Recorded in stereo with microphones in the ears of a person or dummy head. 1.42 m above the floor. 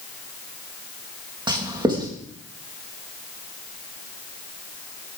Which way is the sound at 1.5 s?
25° right (ahead or behind).